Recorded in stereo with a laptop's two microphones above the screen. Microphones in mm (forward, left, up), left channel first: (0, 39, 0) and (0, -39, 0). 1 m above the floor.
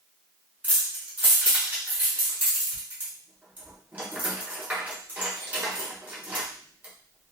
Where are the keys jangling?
20° right (ahead or behind), 0.7 m.